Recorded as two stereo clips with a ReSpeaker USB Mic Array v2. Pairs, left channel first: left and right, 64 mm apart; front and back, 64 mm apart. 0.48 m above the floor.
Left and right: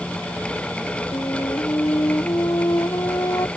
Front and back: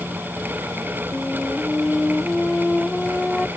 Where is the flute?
85° left.